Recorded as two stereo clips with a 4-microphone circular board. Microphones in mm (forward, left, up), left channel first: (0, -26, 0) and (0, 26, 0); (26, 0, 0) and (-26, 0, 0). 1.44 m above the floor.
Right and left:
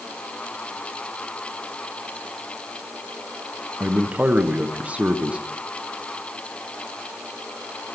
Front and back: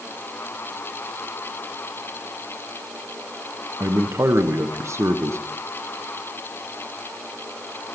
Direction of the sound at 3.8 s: 155° left.